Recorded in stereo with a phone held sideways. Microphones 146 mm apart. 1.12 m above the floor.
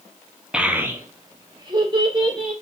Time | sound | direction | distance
0.5 | a child speaking | 5° right (ahead or behind) | 0.6 m